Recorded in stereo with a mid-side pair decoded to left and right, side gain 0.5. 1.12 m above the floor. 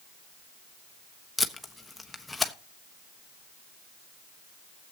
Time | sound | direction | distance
1.4 | tape being pulled | 15° left | 1.2 m